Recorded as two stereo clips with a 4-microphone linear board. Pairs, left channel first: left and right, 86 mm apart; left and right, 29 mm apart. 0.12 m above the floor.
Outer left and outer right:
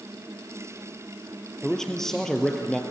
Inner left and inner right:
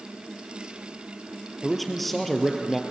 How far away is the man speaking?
About 2 m.